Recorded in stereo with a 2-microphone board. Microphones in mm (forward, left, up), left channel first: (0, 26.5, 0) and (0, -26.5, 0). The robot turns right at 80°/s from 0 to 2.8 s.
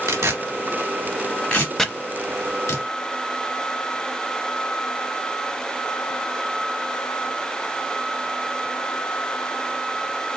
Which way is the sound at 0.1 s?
70° right (ahead or behind).